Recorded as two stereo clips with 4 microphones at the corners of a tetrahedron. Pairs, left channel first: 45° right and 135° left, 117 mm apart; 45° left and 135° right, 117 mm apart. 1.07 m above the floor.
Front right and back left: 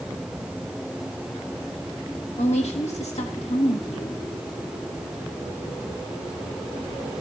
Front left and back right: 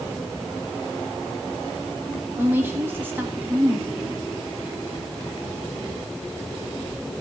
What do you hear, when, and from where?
2.4 s a woman speaking: 65° right, 1.8 m